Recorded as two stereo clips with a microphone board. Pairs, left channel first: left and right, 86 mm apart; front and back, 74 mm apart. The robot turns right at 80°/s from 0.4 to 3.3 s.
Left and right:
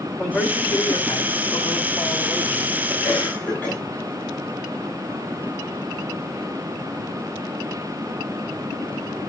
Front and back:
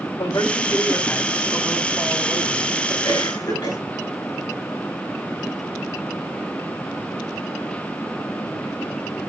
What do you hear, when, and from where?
0.2 s a man speaking: straight ahead, 3 m; by 2.9 s 155° right, 3 m
3.0 s a cough: straight ahead, 8 m; by 3.8 s 20° left, 8 m